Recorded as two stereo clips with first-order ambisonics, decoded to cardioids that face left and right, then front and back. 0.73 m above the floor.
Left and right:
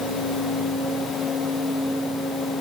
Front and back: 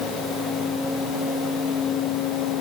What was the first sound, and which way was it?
Only background noise.